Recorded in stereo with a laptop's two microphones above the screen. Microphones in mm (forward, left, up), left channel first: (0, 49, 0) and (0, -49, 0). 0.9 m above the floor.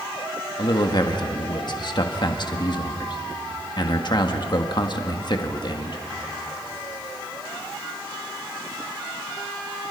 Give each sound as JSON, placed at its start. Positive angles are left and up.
{"t": 0.6, "sound": "a man speaking", "side_deg": 50, "distance_m": 1.5}